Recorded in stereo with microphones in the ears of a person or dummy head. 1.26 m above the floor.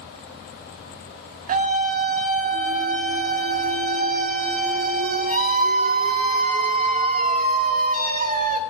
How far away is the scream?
About 0.9 m.